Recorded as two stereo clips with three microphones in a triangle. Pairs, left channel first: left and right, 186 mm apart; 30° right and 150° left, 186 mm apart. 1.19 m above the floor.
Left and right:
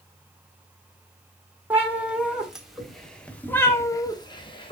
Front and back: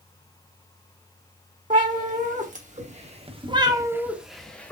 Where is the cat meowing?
170° right, 1.5 m; by 4.7 s 45° left, 0.8 m.